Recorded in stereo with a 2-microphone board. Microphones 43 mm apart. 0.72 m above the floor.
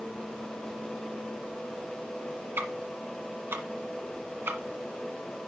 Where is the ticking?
60° right (ahead or behind), 1.4 m.